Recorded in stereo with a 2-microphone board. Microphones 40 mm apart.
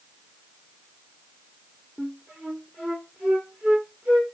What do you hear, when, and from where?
2.0 s a flute: 30° right (ahead or behind), 1.3 m